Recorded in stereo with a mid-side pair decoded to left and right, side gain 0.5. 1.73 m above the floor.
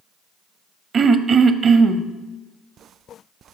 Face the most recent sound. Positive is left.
turn(degrees=-45)